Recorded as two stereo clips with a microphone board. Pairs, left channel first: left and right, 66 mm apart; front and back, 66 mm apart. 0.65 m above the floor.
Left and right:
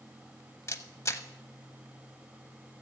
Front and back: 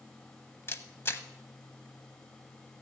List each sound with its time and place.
0.7 s a camera shutter: 50° left, 0.8 m